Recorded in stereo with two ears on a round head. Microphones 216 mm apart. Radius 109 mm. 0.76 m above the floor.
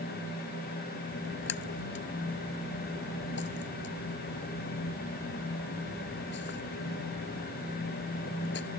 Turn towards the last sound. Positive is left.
turn(degrees=45)  # may be behind; listen again after turning